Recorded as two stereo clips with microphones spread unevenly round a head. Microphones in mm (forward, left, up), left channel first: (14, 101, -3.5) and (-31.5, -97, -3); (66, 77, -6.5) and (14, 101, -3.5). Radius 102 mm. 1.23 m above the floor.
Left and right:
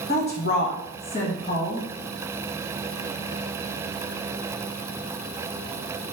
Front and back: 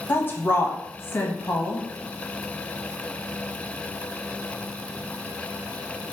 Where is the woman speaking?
30° left, 1.1 m.